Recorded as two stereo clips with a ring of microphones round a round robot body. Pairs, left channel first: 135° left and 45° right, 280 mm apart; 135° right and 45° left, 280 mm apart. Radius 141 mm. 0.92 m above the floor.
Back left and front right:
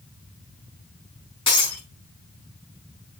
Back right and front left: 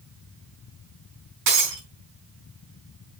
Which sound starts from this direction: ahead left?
Breaking glass, at 1.5 s.